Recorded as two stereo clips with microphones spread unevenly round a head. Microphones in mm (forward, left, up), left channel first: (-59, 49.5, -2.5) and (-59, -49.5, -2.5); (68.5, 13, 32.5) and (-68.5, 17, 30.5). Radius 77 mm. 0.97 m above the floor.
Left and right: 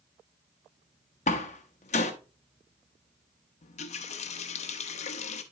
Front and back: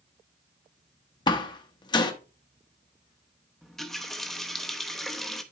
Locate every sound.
1.3 s a door slam: 60° left, 0.9 m
3.6 s a running tap: 85° left, 0.7 m